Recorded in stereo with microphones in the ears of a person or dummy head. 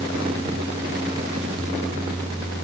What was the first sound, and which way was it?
Only background noise.